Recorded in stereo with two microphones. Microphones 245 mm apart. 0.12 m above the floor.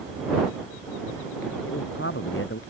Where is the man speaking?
55° left (ahead or behind).